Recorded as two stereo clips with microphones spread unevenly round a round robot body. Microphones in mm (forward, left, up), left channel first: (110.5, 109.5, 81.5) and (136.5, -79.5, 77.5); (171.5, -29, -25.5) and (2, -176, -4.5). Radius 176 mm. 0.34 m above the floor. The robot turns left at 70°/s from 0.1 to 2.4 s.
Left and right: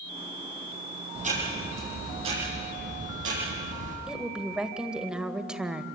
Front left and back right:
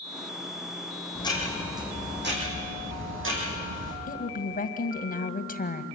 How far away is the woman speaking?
About 2.0 m.